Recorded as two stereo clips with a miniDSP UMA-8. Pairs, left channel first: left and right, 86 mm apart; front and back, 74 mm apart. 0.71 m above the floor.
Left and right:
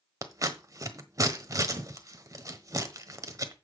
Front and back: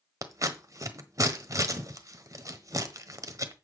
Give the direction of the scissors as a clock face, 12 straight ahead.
5 o'clock.